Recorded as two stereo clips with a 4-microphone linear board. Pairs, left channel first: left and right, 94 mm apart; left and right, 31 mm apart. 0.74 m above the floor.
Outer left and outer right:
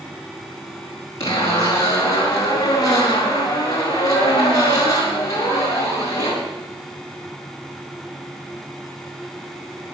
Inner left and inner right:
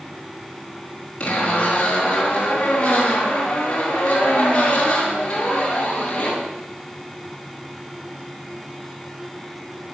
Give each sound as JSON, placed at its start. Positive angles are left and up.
{"t": 1.2, "sound": "a zipper", "side_deg": 35, "distance_m": 6.0}